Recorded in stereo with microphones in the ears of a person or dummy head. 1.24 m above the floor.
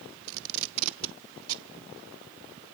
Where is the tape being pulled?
80° right, 0.8 m.